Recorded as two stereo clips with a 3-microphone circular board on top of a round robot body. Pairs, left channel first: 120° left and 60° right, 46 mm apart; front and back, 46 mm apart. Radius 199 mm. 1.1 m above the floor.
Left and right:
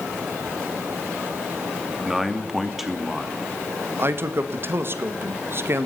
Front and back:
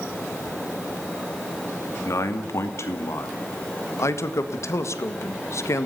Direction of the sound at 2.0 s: 25° left.